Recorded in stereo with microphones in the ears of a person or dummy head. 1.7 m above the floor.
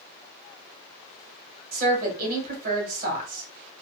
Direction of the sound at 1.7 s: 50° right (ahead or behind).